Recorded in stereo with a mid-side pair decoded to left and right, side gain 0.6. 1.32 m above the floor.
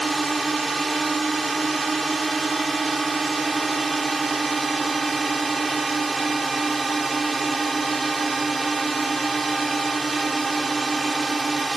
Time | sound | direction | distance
0.0 | a drone | 15° right | ?